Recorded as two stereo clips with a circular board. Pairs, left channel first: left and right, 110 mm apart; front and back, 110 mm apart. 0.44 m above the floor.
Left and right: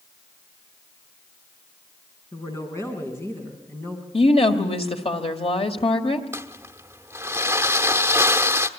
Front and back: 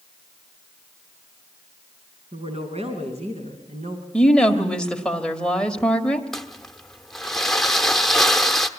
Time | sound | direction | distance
2.3 | a woman speaking | 150° left | 5 m
4.1 | a woman speaking | 80° left | 1.9 m
6.3 | crumpling | 85° right | 1.0 m